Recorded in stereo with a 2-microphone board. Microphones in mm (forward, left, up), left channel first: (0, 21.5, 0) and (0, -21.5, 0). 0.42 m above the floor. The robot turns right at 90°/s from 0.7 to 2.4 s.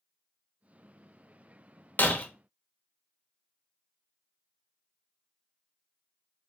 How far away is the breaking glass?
About 0.6 m.